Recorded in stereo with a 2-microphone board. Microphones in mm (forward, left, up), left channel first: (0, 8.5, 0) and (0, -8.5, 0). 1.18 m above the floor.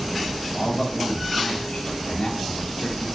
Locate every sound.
0.5 s a man speaking: 85° left, 3 m